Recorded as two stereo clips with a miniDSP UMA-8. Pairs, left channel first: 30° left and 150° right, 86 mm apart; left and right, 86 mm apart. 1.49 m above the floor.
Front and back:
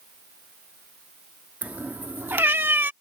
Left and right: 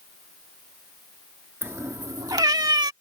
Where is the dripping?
No dripping in this recording.